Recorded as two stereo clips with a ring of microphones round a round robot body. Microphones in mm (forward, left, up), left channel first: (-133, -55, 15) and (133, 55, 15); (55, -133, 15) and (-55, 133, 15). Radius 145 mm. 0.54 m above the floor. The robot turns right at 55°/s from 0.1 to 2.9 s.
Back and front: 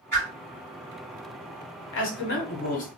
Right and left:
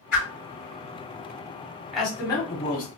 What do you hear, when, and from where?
0.1 s a whoosh: 75° right, 2 m; by 0.3 s 70° right, 2 m
1.9 s a man speaking: 160° right, 1.2 m; by 2.9 s 105° right, 1.2 m